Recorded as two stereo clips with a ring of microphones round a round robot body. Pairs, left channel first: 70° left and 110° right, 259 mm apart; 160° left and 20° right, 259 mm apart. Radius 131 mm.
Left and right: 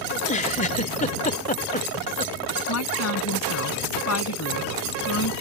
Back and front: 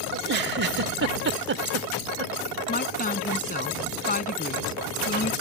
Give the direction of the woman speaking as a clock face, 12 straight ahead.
9 o'clock.